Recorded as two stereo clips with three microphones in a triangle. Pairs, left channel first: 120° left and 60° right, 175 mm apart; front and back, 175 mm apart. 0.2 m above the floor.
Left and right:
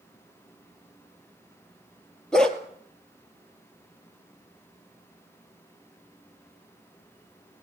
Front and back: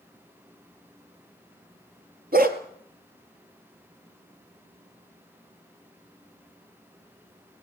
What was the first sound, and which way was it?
A dog barking, 155° right.